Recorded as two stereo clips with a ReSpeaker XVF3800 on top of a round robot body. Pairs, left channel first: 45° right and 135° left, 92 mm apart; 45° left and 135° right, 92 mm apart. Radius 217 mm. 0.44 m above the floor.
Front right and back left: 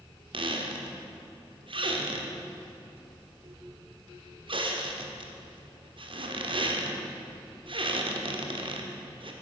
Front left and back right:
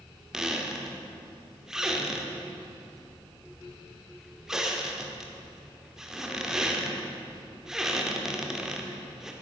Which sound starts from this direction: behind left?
A squeak, at 0.3 s.